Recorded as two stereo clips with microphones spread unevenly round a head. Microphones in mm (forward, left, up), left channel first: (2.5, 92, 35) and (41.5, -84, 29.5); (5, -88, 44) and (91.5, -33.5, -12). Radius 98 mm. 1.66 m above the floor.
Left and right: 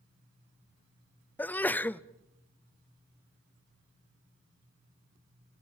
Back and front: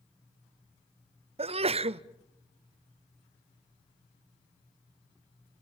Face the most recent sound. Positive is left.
turn(degrees=20)